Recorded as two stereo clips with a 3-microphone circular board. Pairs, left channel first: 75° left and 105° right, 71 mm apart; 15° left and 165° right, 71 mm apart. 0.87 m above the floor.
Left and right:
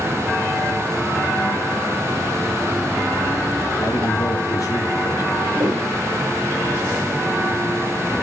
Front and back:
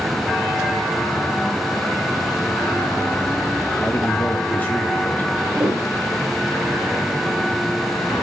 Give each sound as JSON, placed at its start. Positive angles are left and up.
{"t": 3.8, "sound": "a man speaking", "azimuth_deg": 75, "distance_m": 1.6}
{"t": 5.5, "sound": "a piano", "azimuth_deg": -125, "distance_m": 3.0}